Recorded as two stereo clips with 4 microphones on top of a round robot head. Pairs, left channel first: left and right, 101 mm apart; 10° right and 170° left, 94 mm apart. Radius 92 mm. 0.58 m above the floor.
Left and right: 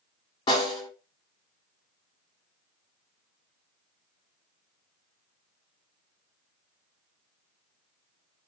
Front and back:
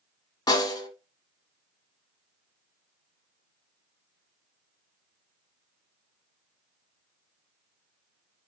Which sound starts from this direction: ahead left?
A snare drum, at 0.5 s.